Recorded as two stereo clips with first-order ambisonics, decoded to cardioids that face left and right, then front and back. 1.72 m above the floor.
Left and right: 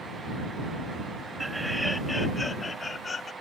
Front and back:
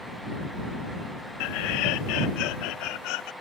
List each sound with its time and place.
1.4 s laughter: 5° right; by 3.3 s 20° left